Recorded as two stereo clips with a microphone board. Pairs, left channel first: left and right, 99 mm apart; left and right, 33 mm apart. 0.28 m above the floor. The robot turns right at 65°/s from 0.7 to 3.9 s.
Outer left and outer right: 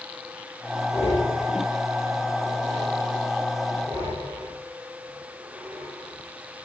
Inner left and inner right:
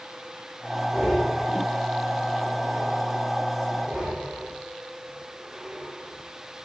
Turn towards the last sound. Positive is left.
turn(degrees=-25)  # may be behind; listen again after turning